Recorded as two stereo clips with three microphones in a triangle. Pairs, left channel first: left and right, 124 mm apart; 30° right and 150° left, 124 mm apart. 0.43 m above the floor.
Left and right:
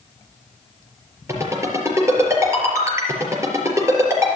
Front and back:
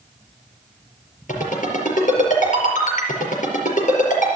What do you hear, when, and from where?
1.3 s a ringtone: 20° right, 4.5 m